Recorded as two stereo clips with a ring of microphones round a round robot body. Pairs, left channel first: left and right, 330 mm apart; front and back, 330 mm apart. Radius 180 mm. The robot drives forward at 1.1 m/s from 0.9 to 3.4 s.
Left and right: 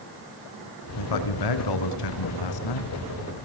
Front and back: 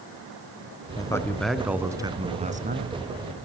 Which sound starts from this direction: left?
A man speaking, at 1.0 s.